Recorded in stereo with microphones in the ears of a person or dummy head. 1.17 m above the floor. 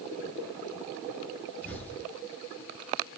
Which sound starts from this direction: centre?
An explosion, at 1.6 s.